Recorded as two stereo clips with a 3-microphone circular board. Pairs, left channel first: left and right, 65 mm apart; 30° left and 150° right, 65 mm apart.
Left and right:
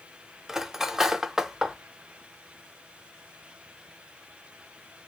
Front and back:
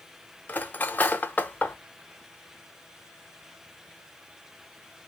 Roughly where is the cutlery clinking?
Ahead.